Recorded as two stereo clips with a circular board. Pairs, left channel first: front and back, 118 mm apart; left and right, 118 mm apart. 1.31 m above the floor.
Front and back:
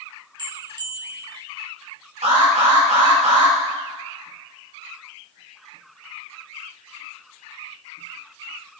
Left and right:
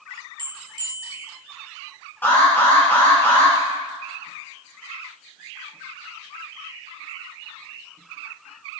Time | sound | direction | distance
0.4 | a bell | 135° right | 1.3 m
2.2 | an alarm | 165° left | 6.5 m